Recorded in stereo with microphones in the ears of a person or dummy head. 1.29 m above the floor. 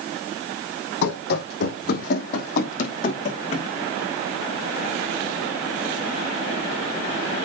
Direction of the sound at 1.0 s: 60° left (ahead or behind).